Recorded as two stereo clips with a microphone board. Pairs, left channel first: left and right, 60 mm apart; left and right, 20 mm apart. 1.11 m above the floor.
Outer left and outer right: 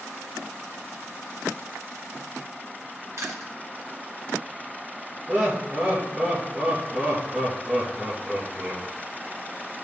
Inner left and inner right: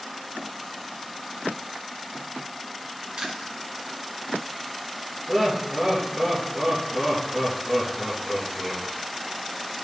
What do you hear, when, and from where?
3.2 s chewing: 55° right (ahead or behind), 2 m
5.3 s laughter: 15° right (ahead or behind), 1.6 m